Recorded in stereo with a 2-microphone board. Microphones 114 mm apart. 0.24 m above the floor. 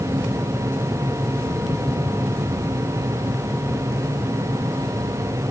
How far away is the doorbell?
I don't hear a doorbell.